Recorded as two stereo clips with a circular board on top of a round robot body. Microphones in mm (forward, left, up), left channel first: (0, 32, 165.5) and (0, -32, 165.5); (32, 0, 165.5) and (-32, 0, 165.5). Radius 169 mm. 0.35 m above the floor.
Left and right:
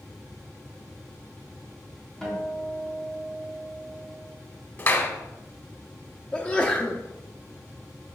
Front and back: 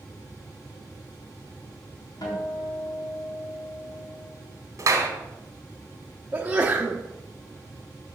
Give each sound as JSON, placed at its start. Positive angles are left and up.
{"t": 2.2, "sound": "a guitar", "azimuth_deg": 5, "distance_m": 3.5}
{"t": 4.8, "sound": "a clap", "azimuth_deg": 145, "distance_m": 1.9}
{"t": 6.3, "sound": "a sneeze", "azimuth_deg": 140, "distance_m": 1.3}